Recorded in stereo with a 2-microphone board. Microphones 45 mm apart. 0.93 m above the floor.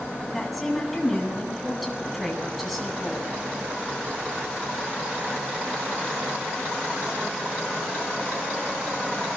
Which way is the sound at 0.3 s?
Centre (ahead or behind).